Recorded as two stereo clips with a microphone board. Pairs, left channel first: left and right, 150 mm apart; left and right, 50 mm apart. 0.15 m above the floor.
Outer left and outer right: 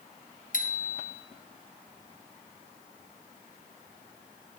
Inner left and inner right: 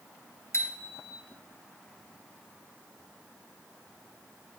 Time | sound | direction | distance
0.5 | a bicycle bell | 65° left (ahead or behind) | 2 m